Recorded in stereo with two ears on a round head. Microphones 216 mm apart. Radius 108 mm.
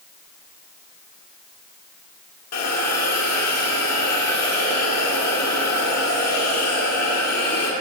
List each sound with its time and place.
2.5 s a hiss: 70° left (ahead or behind), 1.9 m